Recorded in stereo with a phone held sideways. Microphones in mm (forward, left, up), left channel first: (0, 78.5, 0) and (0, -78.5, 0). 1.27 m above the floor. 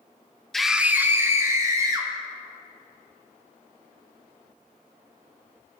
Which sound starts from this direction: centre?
A scream, at 0.5 s.